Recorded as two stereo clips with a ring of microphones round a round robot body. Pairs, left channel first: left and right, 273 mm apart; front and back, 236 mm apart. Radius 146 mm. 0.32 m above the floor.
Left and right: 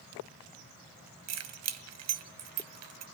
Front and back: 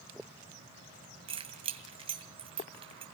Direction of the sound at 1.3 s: 110° right.